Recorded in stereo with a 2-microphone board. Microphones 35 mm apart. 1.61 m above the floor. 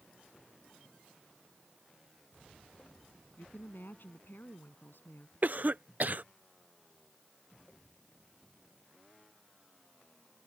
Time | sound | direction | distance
3.4 | a woman speaking | 70° left (ahead or behind) | ?
5.4 | a cough | 50° right (ahead or behind) | ?